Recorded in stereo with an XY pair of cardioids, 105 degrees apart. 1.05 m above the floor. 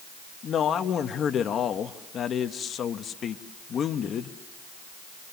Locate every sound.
0.4 s a man speaking: 55° left, 1.2 m